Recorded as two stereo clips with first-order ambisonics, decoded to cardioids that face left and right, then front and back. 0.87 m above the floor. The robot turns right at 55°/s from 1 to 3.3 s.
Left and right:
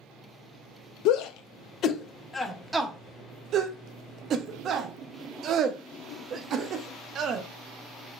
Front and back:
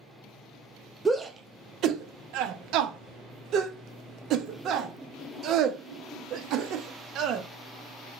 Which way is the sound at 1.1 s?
100° left.